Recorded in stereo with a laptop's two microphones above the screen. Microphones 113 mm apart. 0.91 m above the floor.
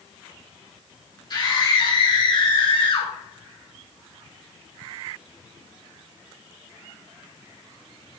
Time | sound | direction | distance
1.3 | a scream | 40° left (ahead or behind) | 3.5 m